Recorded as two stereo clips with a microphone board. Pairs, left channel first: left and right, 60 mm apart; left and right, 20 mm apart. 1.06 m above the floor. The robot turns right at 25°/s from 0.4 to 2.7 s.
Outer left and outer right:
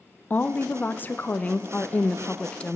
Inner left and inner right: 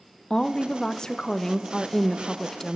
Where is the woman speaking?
80° left, 0.6 m; by 2.8 s 140° left, 0.6 m.